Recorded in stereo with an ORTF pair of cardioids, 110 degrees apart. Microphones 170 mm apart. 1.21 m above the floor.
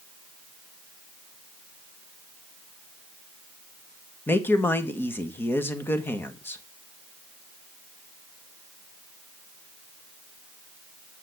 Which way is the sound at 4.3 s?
15° left.